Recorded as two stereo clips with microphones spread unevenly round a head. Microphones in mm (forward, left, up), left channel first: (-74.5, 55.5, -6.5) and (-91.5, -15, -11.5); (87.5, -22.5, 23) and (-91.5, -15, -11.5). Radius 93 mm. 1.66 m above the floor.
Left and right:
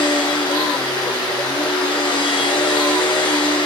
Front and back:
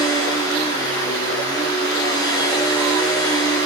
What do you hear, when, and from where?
0.0 s a machine running: 70° left, 3 m